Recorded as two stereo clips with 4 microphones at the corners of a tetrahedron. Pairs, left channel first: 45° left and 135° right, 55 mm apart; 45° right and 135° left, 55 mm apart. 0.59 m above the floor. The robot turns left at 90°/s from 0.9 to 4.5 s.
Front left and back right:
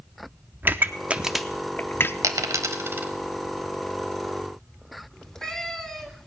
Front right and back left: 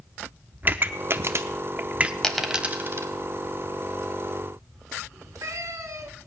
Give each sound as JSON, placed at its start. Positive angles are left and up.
{"t": 0.6, "sound": "a pop", "azimuth_deg": 180, "distance_m": 0.6}
{"t": 2.2, "sound": "a dropped coin", "azimuth_deg": -120, "distance_m": 0.9}
{"t": 5.1, "sound": "a cat meowing", "azimuth_deg": 125, "distance_m": 1.6}